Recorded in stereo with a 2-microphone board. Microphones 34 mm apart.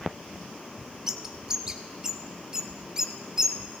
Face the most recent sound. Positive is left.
turn(degrees=-20)  # may be behind; listen again after turning